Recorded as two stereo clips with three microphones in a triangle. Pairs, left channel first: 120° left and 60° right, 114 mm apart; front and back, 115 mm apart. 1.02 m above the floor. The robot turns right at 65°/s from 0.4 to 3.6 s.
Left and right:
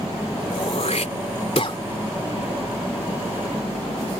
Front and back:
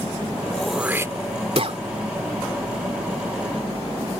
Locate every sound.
0.5 s throat clearing: 80° left; by 1.8 s 165° left